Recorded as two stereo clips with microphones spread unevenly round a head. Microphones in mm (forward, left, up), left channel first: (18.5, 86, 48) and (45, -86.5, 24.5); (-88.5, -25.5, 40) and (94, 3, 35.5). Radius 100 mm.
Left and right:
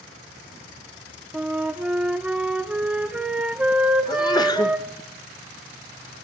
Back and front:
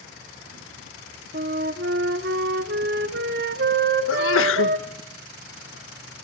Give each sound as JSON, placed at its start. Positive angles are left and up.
{"t": 1.3, "sound": "a flute", "azimuth_deg": 10, "distance_m": 0.9}
{"t": 4.1, "sound": "a sneeze", "azimuth_deg": 170, "distance_m": 1.6}